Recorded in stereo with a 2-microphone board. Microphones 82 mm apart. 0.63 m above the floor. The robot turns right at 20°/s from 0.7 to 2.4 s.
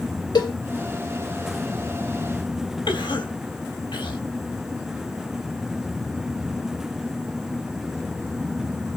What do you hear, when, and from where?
0.3 s a cowbell: 60° left (ahead or behind), 2 m
2.9 s a cough: 75° left (ahead or behind), 3.5 m